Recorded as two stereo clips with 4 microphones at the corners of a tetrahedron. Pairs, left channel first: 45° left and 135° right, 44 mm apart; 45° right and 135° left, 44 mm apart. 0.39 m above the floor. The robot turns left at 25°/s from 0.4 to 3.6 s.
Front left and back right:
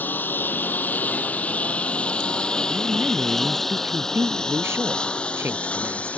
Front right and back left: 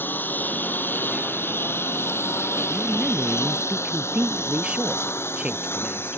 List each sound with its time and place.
0.0 s a lawn mower: 5° right; by 6.2 s 15° right
2.7 s a woman speaking: 140° right; by 6.2 s 160° right